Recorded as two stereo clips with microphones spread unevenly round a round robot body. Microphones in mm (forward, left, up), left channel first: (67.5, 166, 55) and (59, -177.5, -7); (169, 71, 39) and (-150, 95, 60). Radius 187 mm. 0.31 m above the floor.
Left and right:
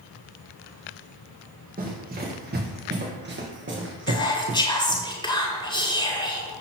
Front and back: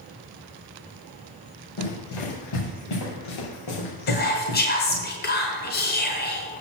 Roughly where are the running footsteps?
Ahead right.